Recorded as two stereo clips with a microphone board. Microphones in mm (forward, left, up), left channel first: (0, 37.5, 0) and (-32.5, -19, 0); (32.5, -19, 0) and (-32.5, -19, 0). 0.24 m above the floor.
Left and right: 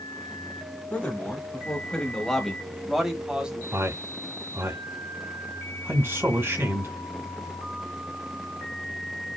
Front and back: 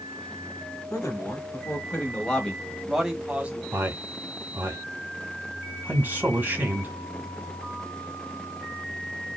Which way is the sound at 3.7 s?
135° right.